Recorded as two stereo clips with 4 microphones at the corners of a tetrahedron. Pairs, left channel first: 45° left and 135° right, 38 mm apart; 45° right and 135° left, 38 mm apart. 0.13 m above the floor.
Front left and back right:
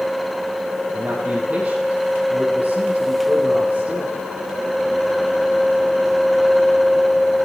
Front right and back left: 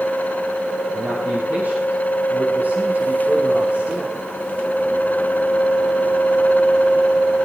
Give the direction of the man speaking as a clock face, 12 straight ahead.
6 o'clock.